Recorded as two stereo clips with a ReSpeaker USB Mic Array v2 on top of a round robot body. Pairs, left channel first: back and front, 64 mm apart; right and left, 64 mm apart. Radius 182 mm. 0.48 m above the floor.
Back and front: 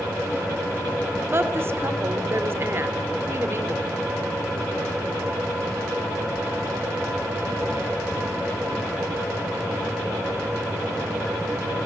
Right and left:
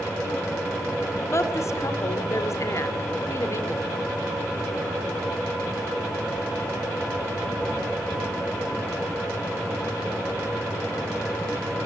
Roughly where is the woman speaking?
Ahead right.